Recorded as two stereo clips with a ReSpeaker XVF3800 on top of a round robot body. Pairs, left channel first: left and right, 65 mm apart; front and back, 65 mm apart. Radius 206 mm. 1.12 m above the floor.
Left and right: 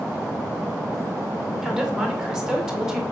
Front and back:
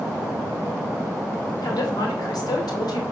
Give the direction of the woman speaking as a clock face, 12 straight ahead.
12 o'clock.